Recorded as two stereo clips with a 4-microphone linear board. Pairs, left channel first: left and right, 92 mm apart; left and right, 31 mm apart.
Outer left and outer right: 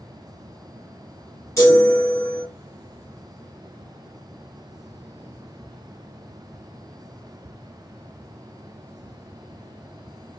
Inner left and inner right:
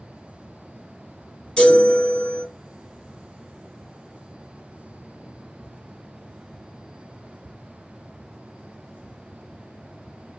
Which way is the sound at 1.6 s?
35° left (ahead or behind).